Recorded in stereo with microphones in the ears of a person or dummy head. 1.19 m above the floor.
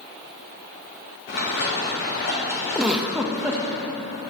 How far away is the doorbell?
I don't hear a doorbell.